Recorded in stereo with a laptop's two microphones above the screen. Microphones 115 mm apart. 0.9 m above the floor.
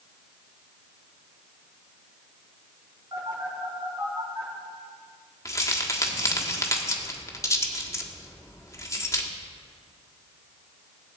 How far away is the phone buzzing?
About 3.5 m.